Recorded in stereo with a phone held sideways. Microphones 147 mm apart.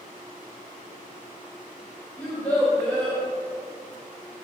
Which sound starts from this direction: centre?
A child speaking, at 2.2 s.